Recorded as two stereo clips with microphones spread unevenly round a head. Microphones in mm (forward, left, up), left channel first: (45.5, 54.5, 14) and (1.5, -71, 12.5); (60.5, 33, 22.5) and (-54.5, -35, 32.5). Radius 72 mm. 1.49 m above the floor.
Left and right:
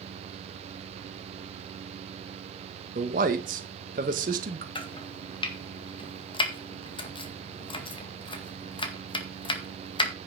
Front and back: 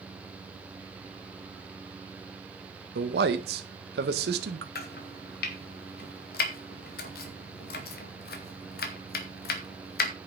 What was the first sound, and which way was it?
A man speaking, 150° right.